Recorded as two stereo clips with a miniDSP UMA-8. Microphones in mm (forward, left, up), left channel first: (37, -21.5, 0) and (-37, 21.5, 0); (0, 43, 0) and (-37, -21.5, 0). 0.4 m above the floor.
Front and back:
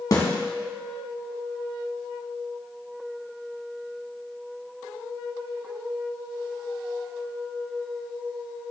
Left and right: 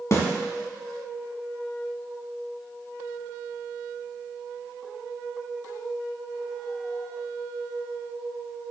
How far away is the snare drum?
About 1.5 m.